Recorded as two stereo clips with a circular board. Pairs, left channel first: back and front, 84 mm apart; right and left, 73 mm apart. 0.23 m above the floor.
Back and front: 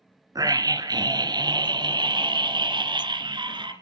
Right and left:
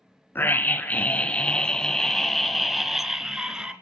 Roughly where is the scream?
Ahead right.